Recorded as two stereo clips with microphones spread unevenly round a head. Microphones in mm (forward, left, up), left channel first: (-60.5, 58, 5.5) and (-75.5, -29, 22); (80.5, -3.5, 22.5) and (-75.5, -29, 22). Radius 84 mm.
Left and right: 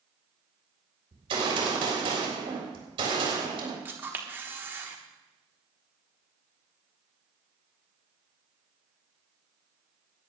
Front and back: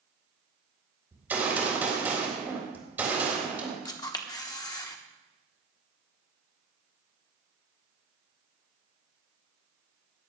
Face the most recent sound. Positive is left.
turn(degrees=-50)